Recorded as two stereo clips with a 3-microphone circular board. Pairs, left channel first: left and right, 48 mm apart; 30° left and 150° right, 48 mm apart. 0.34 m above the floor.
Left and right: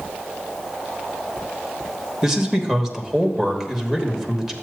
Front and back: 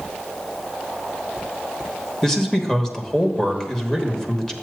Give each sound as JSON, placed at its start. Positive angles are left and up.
{"t": 2.2, "sound": "a man speaking", "azimuth_deg": -25, "distance_m": 1.1}